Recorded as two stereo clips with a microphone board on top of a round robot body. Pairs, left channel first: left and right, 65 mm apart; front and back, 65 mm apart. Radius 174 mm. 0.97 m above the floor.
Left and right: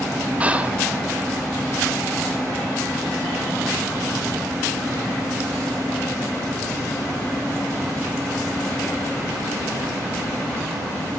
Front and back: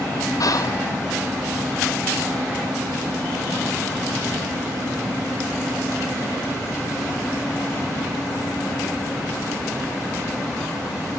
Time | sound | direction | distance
0.4 | whispering | 20° right | 1.4 m